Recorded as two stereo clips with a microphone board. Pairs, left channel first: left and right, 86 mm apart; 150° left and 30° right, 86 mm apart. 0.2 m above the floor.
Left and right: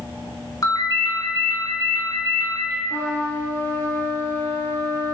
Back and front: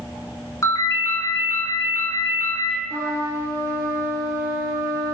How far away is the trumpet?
About 0.7 m.